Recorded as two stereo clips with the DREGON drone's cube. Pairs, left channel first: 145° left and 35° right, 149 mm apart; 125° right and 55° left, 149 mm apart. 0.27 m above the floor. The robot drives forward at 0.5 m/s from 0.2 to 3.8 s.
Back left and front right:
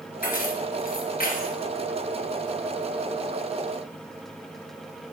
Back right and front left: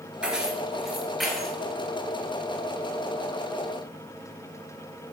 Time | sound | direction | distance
0.2 | keys jangling | 140° left | 3 m